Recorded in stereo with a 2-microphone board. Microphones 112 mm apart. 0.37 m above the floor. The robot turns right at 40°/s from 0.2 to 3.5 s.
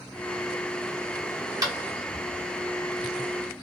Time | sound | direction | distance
1.6 | tapping | 35° right (ahead or behind) | 1.6 m